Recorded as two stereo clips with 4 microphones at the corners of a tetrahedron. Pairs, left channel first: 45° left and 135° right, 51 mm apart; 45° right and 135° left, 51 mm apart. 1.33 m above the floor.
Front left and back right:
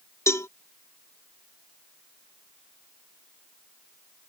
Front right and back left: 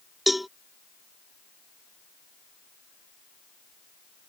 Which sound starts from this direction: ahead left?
A cowbell, at 0.3 s.